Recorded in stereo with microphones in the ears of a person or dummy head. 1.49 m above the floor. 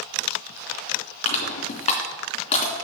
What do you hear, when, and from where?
1.2 s crushing: 40° left (ahead or behind), 3 m